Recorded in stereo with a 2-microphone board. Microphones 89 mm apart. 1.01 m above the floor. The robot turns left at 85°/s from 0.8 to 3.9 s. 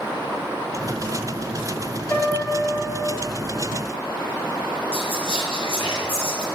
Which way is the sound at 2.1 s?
35° left.